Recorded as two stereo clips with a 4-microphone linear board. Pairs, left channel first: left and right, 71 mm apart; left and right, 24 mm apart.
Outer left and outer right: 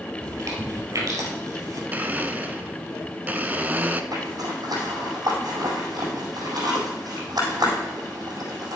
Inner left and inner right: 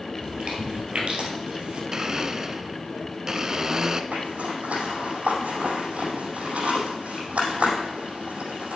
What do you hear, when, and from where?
0.2 s chewing: 50° right (ahead or behind), 2.5 m
1.9 s a blender: 25° right (ahead or behind), 0.7 m
4.1 s a zipper: 70° right (ahead or behind), 4.5 m